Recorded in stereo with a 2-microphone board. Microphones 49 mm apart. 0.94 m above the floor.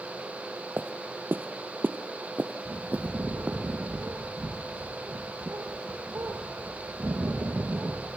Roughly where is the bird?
Right.